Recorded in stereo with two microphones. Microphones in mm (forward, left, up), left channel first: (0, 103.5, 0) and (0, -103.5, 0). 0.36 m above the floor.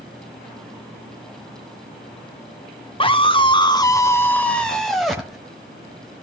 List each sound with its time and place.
3.0 s a scream: 25° left (ahead or behind), 1.1 m; by 5.4 s centre (ahead or behind), 1.9 m